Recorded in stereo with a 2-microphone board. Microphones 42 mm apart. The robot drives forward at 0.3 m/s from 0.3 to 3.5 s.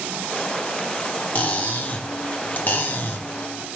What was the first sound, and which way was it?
Cutlery clinking, 35° left (ahead or behind).